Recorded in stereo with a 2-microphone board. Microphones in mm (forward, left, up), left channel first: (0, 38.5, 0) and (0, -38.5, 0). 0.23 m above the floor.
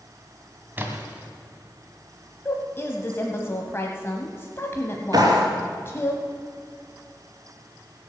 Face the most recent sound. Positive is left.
turn(degrees=-60)  # may be behind; listen again after turning